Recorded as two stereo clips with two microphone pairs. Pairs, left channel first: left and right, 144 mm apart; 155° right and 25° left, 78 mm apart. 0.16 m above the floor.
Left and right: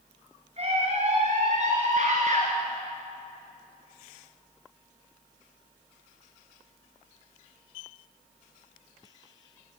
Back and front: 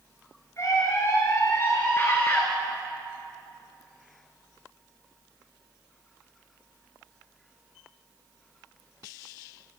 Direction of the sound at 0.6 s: 115° right.